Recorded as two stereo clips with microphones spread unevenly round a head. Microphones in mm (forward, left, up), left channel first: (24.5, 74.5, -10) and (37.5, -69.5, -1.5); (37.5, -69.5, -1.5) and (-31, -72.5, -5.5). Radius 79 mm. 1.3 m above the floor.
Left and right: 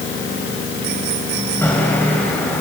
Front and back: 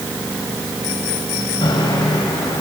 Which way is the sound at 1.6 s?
15° left.